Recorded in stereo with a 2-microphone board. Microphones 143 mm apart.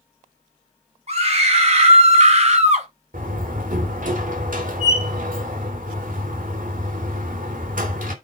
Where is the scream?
45° right (ahead or behind), 5 m; by 2.9 s 50° right (ahead or behind), 2.5 m.